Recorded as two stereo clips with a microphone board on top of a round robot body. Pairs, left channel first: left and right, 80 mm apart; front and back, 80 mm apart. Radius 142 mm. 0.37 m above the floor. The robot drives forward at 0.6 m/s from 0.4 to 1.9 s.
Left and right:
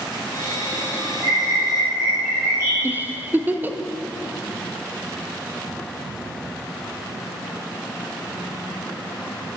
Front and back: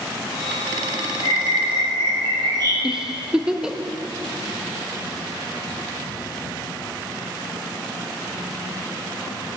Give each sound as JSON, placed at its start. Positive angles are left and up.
{"t": 1.2, "sound": "a bird", "azimuth_deg": -140, "distance_m": 2.5}
{"t": 2.8, "sound": "a giggle", "azimuth_deg": -105, "distance_m": 0.6}